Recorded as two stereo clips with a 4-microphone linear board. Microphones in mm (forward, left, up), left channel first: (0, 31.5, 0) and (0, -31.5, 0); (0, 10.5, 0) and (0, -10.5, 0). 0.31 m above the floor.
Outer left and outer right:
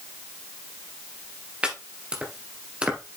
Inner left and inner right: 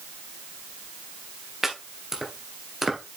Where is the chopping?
15° right (ahead or behind), 2 m.